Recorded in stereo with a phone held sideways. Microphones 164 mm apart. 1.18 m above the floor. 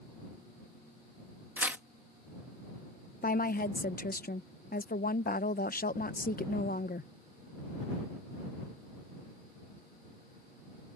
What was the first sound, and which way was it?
Tearing paper, 10° right (ahead or behind).